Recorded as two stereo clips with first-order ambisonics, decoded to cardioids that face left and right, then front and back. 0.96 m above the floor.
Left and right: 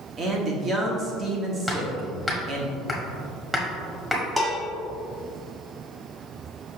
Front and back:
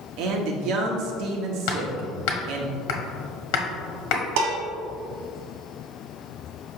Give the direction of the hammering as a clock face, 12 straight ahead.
12 o'clock.